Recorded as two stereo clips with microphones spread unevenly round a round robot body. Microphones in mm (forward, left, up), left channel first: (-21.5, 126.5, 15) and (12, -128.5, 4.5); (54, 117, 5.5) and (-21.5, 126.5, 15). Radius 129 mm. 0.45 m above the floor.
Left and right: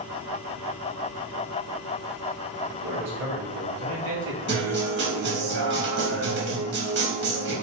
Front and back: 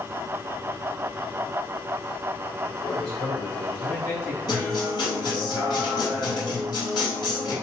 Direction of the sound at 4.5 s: 40° right.